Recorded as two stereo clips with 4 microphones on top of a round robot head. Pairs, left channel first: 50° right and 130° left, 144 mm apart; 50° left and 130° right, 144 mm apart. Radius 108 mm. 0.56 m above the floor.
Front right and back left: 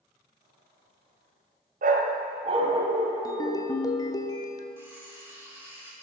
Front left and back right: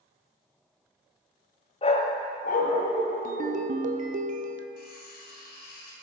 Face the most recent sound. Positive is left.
turn(degrees=55)